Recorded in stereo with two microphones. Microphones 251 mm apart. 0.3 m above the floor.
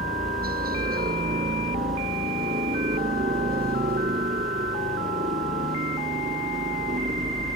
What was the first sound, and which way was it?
A helicopter, 35° right (ahead or behind).